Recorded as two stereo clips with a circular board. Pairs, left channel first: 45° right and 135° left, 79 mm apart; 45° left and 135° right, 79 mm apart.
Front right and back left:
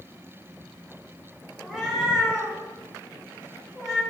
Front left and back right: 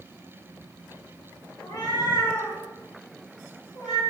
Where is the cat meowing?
50° left, 0.8 m.